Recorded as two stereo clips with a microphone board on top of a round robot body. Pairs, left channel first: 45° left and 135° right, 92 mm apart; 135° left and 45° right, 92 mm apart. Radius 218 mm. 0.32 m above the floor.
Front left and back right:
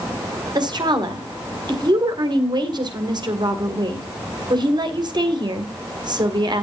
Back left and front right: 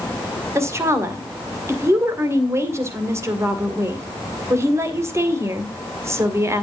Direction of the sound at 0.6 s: 100° right.